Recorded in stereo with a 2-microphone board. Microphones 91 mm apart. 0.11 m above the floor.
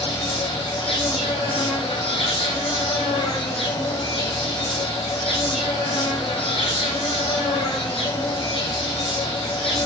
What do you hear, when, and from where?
0.0 s an insect: 75° left (ahead or behind), 1.3 m